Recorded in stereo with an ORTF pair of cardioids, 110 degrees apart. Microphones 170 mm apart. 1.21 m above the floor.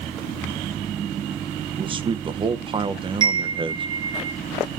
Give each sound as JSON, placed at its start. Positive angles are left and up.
{"t": 1.8, "sound": "a man speaking", "azimuth_deg": -30, "distance_m": 0.8}
{"t": 3.2, "sound": "a chime", "azimuth_deg": -25, "distance_m": 1.1}